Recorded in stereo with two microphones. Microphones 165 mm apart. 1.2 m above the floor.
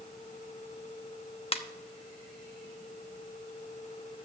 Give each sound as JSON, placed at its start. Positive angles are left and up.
{"t": 1.5, "sound": "a ringtone", "side_deg": 35, "distance_m": 0.9}